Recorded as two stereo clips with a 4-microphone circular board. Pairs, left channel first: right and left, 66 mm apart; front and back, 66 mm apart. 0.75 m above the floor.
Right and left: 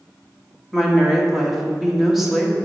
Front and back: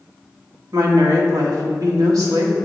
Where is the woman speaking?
175° left, 1.5 m.